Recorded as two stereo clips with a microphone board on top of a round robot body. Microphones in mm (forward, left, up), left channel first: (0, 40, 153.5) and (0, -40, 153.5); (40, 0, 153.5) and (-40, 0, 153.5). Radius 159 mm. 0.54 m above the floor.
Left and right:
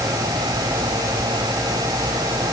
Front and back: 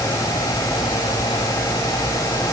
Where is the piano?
I don't hear a piano.